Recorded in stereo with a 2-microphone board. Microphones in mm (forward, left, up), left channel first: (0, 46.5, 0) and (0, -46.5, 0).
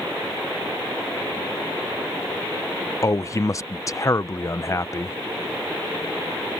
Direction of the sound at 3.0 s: 35° left (ahead or behind).